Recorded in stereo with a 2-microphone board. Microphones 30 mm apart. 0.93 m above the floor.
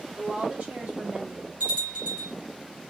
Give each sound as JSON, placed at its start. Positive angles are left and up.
{"t": 0.2, "sound": "a woman speaking", "side_deg": -40, "distance_m": 3.5}
{"t": 1.6, "sound": "a bell", "side_deg": -55, "distance_m": 4.0}